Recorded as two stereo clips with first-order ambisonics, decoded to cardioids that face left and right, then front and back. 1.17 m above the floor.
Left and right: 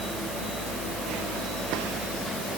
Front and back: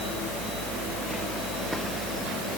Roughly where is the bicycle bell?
I don't hear a bicycle bell.